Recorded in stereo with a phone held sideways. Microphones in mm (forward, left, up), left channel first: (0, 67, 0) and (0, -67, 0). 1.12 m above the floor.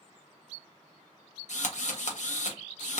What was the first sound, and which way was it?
A drill, 60° left (ahead or behind).